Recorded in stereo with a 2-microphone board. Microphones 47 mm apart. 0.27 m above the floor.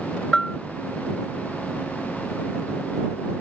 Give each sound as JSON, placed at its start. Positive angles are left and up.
{"t": 0.3, "sound": "a bell", "side_deg": 15}